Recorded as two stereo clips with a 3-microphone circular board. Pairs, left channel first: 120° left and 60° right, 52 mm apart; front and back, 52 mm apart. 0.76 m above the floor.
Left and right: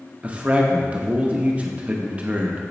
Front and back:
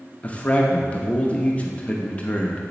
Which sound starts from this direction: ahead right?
A man speaking, at 0.2 s.